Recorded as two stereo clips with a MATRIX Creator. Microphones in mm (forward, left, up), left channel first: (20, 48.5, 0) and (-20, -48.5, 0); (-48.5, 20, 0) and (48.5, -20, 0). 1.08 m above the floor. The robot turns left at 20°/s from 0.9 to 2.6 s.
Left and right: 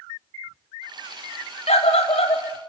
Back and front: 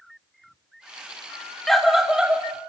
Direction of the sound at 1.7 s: 70° left.